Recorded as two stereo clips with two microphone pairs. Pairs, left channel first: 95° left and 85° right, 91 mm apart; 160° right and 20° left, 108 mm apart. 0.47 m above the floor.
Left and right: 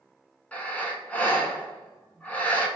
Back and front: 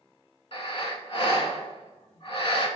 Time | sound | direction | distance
0.5 | breathing | 170° left | 0.8 m